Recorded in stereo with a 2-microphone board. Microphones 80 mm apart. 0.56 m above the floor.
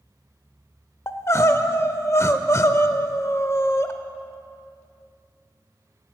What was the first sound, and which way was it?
Crying, 35° left (ahead or behind).